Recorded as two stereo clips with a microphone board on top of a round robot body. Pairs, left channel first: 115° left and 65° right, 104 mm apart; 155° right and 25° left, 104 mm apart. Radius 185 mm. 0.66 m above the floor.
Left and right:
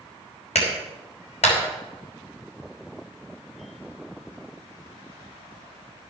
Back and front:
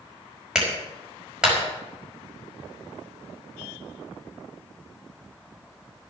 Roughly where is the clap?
Left.